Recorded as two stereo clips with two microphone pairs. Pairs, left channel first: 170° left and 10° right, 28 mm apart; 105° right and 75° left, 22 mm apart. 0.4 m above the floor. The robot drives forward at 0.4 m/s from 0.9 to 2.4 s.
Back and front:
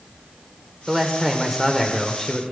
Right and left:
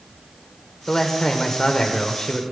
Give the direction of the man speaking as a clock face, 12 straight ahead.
2 o'clock.